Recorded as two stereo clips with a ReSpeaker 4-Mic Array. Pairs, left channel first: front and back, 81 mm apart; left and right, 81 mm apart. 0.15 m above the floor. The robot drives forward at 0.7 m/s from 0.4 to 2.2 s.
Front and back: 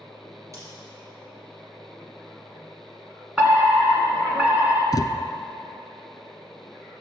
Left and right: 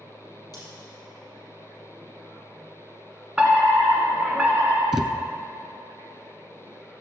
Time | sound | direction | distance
0.5 | scissors | 130° left | 5 m
3.4 | a fire alarm | 135° right | 2 m
4.9 | a thud | 15° right | 0.8 m